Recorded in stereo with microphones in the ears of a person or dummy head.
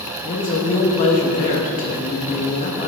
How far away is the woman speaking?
About 1.3 m.